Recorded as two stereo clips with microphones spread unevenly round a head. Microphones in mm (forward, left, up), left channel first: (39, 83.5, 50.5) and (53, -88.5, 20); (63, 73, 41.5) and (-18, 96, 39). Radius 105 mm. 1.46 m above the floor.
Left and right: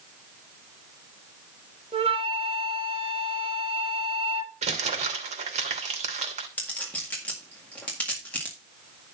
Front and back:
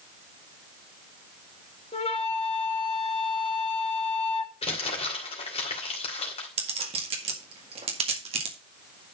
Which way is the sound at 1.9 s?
30° right.